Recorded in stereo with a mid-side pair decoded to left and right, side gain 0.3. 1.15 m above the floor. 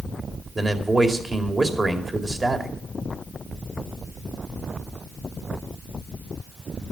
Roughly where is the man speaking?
Ahead right.